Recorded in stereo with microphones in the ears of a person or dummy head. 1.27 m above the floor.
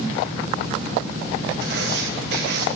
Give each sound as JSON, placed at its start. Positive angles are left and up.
{"t": 1.6, "sound": "writing", "side_deg": -65, "distance_m": 2.0}